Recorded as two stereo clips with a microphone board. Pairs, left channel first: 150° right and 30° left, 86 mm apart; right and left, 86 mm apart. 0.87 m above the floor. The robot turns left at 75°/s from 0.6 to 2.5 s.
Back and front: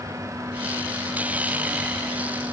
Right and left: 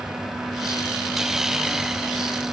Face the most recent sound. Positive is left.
No sound to turn to.